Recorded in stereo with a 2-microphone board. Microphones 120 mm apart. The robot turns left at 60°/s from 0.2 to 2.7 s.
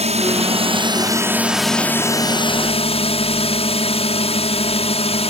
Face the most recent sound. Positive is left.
turn(degrees=55)  # may be behind; listen again after turning